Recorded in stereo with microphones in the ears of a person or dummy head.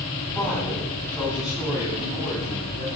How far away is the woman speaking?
About 9 m.